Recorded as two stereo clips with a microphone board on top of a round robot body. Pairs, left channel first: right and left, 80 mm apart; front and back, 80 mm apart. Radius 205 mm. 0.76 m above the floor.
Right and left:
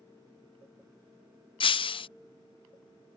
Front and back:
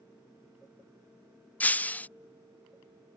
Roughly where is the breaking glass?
Right.